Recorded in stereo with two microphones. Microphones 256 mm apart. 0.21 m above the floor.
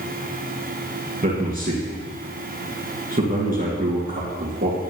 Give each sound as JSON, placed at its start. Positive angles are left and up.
{"t": 1.2, "sound": "a man speaking", "side_deg": -35, "distance_m": 3.0}